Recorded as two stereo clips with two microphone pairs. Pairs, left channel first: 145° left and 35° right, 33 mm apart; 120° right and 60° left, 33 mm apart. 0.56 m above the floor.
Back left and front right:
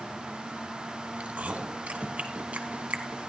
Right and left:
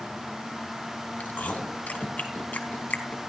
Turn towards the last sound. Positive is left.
turn(degrees=-85)